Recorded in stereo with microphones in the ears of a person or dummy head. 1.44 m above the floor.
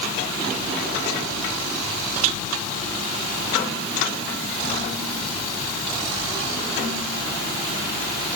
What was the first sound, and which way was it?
Only background noise.